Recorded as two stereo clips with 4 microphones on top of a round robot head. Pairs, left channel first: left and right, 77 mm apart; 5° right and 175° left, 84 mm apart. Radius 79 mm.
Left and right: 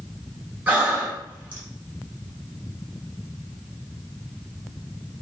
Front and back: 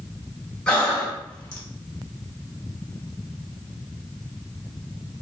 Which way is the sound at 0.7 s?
65° right.